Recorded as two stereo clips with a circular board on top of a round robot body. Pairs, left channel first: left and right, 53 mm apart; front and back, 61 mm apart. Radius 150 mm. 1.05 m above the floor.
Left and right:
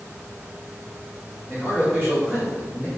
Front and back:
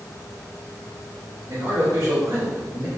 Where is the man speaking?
165° left, 1.7 m.